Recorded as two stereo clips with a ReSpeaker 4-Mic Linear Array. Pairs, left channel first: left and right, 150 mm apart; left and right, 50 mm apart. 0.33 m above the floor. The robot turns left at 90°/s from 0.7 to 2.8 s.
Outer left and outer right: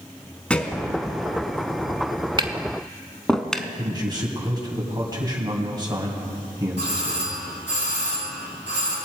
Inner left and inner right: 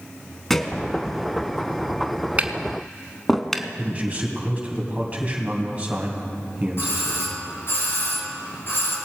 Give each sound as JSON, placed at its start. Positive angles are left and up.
{"t": 0.5, "sound": "a thud", "side_deg": 10, "distance_m": 0.9}
{"t": 2.4, "sound": "tapping", "side_deg": -35, "distance_m": 0.7}
{"t": 3.8, "sound": "a man speaking", "side_deg": -30, "distance_m": 2.5}
{"t": 6.8, "sound": "a doorbell", "side_deg": 60, "distance_m": 3.0}